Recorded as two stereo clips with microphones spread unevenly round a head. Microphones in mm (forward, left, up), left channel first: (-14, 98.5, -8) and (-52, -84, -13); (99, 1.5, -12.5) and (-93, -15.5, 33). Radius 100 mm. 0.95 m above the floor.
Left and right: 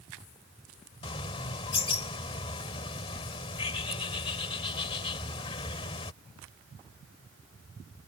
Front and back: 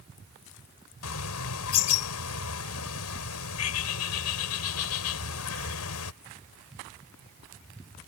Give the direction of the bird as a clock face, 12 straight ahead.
12 o'clock.